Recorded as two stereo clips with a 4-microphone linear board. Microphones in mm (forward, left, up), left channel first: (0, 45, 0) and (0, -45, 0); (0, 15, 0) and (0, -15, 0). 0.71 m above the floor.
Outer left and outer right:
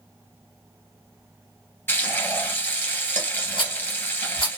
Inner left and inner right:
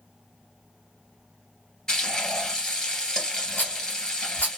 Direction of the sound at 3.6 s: 70° left (ahead or behind).